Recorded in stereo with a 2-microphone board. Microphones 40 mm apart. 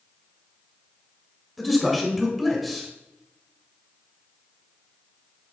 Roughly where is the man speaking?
Centre.